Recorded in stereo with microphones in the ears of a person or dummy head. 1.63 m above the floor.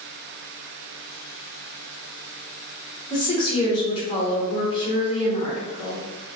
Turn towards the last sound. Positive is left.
turn(degrees=30)  # may be behind; listen again after turning